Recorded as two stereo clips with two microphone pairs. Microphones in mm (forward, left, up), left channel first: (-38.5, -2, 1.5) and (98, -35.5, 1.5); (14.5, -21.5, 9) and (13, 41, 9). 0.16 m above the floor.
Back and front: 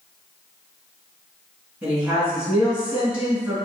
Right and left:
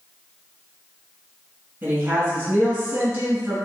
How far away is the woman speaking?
About 1.5 m.